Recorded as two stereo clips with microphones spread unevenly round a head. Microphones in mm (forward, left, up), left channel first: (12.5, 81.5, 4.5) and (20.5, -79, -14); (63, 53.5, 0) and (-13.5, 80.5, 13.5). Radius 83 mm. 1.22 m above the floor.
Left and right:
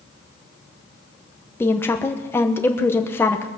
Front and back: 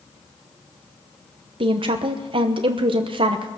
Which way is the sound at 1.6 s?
175° left.